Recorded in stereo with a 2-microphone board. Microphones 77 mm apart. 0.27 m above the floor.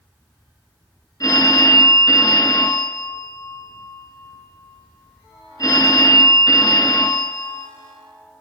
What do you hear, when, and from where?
1.2 s a phone ringing: 50° left (ahead or behind), 1.7 m